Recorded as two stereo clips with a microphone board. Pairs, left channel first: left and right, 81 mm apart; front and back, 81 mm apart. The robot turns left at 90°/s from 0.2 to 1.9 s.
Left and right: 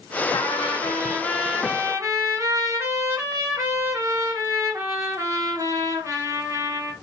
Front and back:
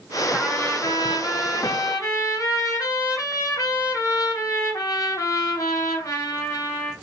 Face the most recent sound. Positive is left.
turn(degrees=-45)